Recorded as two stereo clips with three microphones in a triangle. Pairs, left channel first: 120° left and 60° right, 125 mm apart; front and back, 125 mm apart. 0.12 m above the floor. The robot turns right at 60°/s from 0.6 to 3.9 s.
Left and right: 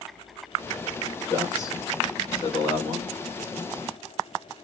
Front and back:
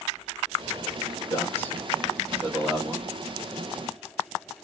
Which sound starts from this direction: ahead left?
A man speaking, at 1.3 s.